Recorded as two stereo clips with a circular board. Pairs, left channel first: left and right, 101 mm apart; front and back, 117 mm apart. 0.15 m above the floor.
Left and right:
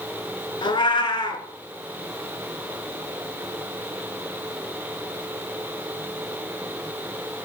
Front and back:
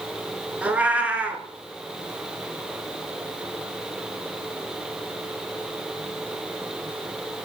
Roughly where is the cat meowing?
Left.